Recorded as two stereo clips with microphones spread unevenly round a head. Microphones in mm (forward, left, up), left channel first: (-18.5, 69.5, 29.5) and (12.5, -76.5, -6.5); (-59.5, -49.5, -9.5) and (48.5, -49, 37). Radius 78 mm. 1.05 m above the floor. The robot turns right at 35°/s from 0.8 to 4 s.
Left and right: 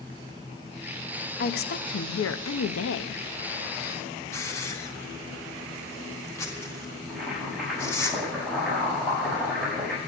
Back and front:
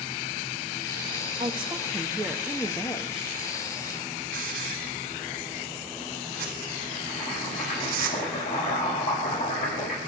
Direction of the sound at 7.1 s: 165° right.